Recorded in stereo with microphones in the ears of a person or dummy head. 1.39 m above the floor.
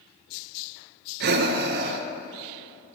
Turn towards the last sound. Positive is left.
turn(degrees=-55)  # may be behind; listen again after turning